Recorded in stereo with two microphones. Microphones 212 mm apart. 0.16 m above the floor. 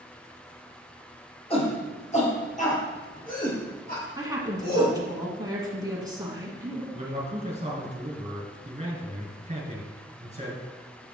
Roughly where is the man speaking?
Right.